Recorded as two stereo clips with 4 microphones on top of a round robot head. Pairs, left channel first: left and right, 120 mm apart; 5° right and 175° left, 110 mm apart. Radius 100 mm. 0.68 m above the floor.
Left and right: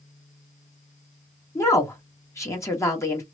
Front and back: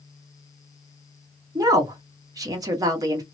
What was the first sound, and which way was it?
A woman speaking, 140° left.